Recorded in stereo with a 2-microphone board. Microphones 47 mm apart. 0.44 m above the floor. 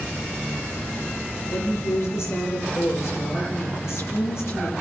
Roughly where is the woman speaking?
Left.